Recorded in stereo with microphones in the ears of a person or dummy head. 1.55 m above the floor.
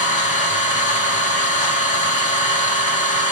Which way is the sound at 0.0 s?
40° left (ahead or behind).